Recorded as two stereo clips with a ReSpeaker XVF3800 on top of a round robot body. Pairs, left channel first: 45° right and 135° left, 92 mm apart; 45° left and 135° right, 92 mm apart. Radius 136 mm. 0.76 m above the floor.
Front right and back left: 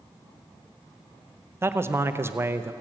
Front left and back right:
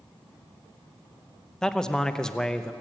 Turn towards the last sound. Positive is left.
turn(degrees=120)